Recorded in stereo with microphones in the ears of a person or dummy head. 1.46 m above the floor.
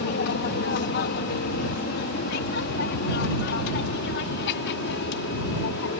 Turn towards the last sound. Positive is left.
turn(degrees=60)  # may be behind; listen again after turning